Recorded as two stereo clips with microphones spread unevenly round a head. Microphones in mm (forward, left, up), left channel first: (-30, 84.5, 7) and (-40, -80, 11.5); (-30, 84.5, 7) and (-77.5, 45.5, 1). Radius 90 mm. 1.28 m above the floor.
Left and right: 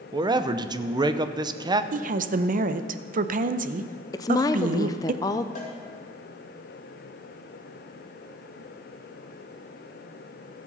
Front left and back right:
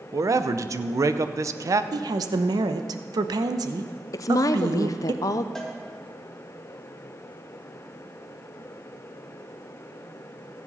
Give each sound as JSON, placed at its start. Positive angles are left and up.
{"t": 0.1, "sound": "a man speaking", "azimuth_deg": -155, "distance_m": 0.7}
{"t": 1.9, "sound": "a woman speaking", "azimuth_deg": -130, "distance_m": 0.7}
{"t": 4.1, "sound": "a woman speaking", "azimuth_deg": 20, "distance_m": 0.5}
{"t": 5.5, "sound": "a cowbell", "azimuth_deg": 125, "distance_m": 2.5}